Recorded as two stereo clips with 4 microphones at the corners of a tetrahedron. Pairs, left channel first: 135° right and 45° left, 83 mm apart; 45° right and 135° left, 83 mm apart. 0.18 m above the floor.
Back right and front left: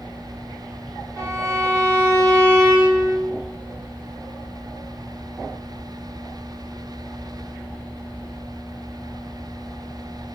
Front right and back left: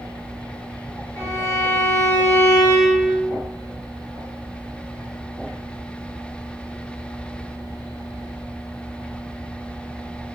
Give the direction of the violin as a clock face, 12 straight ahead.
12 o'clock.